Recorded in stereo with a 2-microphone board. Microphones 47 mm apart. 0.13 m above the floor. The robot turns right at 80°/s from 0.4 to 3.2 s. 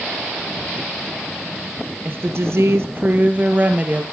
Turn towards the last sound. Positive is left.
turn(degrees=-35)